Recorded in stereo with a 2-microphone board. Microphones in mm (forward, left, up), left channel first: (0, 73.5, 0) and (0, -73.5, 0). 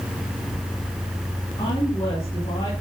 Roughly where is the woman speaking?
Left.